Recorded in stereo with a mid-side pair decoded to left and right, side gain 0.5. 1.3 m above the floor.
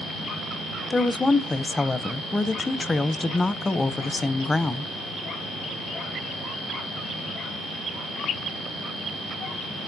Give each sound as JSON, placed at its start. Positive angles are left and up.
{"t": 0.9, "sound": "a woman speaking", "azimuth_deg": 20, "distance_m": 0.6}